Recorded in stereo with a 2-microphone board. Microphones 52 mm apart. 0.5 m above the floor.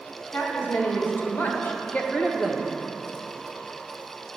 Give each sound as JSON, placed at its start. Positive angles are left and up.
{"t": 0.3, "sound": "a woman speaking", "side_deg": 50, "distance_m": 2.5}